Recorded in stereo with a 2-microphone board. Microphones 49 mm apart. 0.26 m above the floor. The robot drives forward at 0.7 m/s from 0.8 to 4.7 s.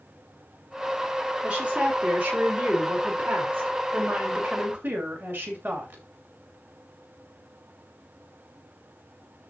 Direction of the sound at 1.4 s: 25° right (ahead or behind).